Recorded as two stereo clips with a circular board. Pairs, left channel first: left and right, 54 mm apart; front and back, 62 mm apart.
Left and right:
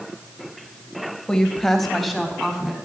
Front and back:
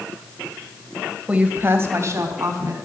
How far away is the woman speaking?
About 1.4 m.